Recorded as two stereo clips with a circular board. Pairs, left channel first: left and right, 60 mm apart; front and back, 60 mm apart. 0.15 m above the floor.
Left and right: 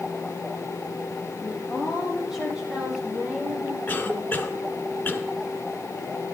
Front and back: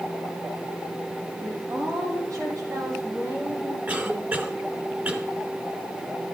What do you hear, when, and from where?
1.4 s a woman speaking: straight behind, 7 m; by 3.8 s 150° right, 7.5 m
3.9 s a cough: 135° left, 2 m